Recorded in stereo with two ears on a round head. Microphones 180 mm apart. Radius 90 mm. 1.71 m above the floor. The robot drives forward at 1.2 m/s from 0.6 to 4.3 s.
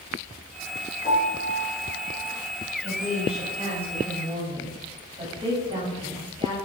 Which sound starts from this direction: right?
A woman speaking, at 2.8 s.